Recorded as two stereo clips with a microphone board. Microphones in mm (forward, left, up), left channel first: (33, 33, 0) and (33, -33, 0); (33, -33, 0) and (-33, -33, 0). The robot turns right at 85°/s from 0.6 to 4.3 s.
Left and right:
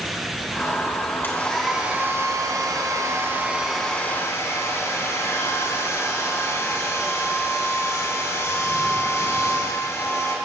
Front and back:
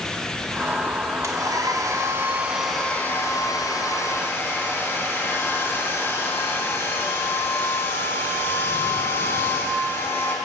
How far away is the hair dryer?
About 2 m.